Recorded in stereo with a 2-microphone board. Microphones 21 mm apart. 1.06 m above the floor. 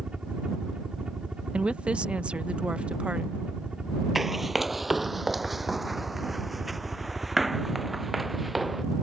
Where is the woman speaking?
60° right (ahead or behind).